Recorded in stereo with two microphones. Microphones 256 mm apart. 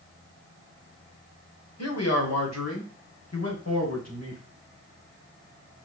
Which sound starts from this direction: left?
A man speaking, at 1.8 s.